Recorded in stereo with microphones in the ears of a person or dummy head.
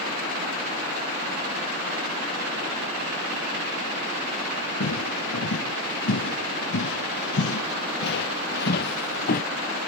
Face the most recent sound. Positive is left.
turn(degrees=50)  # may be behind; listen again after turning